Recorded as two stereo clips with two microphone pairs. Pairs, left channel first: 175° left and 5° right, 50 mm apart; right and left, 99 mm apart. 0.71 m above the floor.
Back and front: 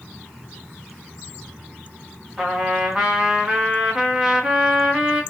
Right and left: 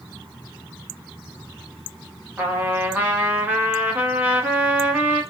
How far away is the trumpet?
About 1.0 m.